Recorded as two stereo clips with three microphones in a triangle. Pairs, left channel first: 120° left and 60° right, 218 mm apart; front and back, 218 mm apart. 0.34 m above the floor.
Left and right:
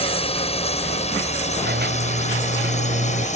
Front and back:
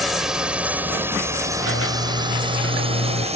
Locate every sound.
0.0 s a drone: 90° left; by 3.4 s 145° left
1.6 s a squeak: 20° right